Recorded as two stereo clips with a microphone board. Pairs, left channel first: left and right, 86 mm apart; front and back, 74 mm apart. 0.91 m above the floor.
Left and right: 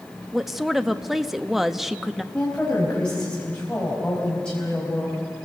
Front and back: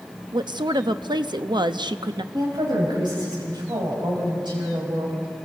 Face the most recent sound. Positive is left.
turn(degrees=170)